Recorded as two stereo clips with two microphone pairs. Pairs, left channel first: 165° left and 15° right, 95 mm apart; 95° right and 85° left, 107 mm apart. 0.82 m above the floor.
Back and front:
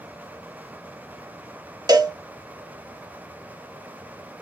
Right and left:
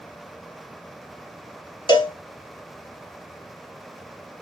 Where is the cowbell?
55° right, 0.7 m.